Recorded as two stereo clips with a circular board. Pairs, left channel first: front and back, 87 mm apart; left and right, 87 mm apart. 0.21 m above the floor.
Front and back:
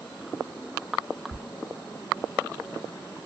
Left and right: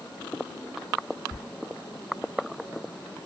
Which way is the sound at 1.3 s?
135° left.